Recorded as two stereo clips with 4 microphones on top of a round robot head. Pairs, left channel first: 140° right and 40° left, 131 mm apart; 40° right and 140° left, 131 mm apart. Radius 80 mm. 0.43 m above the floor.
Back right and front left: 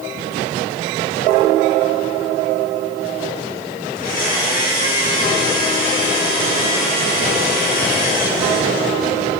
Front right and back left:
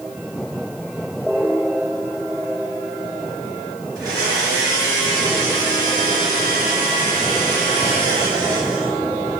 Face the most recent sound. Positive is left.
turn(degrees=-155)